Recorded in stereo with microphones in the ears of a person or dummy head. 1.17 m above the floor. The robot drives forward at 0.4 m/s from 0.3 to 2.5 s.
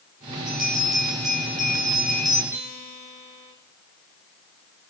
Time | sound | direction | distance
0.5 | a bell | centre (ahead or behind) | 8.5 m
2.5 | a guitar | 10° right (ahead or behind) | 7 m